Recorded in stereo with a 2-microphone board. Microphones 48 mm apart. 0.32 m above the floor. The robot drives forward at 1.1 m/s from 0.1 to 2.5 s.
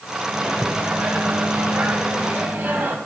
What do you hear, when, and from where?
0.3 s a microwave: 35° right (ahead or behind), 2 m; by 3.0 s 40° right (ahead or behind), 2 m